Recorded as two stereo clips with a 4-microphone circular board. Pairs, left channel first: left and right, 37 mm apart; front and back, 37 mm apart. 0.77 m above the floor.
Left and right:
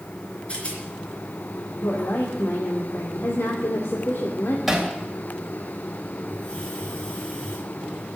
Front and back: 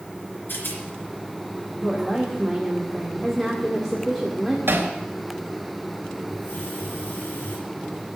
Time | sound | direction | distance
0.5 | a rattle | 30° left | 3 m
1.8 | a woman speaking | 90° left | 1.9 m
4.7 | hammering | 175° right | 3 m
6.3 | a hiss | 20° left | 5.5 m